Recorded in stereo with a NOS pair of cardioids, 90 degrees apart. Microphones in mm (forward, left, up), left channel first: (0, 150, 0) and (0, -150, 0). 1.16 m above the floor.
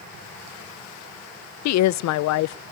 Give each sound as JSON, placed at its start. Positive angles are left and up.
{"t": 1.6, "sound": "a woman speaking", "azimuth_deg": 70, "distance_m": 0.5}